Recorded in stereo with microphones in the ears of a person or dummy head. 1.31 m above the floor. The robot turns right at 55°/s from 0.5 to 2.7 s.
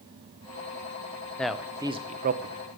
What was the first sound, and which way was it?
A man speaking, 5° left (ahead or behind).